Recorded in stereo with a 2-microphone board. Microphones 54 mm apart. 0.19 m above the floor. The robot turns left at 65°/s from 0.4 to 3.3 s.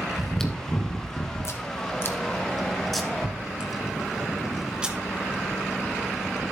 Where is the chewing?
10° left (ahead or behind), 1.2 m; by 4.9 s 15° right (ahead or behind), 1.2 m.